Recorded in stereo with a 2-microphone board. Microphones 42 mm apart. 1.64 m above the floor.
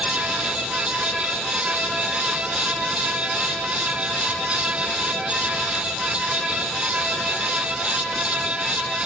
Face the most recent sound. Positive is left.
No sound to turn to.